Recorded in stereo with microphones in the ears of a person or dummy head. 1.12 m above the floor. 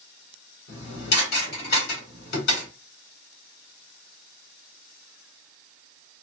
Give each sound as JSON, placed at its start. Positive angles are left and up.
{"t": 0.7, "sound": "dishes clattering", "side_deg": 60, "distance_m": 2.5}